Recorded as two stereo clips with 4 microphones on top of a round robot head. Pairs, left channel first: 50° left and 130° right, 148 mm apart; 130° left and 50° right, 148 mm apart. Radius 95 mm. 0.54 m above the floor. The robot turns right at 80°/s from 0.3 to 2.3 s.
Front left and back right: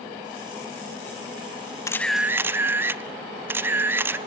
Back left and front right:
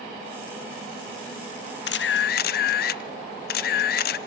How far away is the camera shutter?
About 0.6 m.